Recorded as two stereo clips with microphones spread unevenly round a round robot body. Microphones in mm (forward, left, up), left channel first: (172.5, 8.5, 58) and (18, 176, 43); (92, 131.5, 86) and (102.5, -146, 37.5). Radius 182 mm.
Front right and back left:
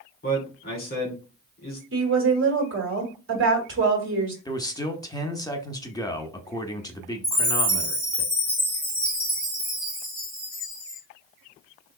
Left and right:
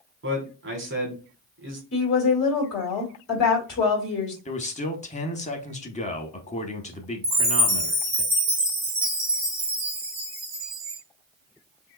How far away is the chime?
About 1.0 m.